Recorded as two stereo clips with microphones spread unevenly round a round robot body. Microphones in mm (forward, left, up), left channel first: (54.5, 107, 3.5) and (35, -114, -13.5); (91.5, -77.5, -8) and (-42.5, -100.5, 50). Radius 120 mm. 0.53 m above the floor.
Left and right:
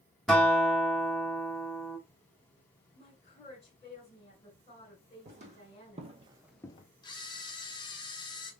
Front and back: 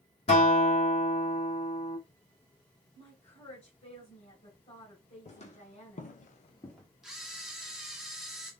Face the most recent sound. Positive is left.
turn(degrees=35)